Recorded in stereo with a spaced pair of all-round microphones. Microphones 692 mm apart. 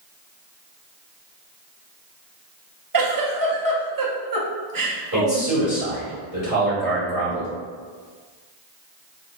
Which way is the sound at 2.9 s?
35° right (ahead or behind).